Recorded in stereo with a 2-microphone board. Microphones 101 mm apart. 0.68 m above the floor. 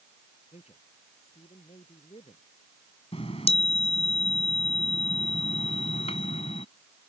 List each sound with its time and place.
0.5 s a man speaking: 85° left
3.1 s a chime: 80° left